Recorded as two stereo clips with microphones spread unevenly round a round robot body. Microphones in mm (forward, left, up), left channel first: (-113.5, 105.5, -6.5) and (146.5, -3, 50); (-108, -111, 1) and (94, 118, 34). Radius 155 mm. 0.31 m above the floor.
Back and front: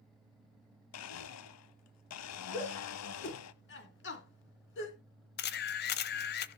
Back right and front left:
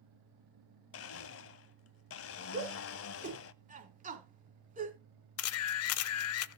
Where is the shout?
115° left, 3.5 m.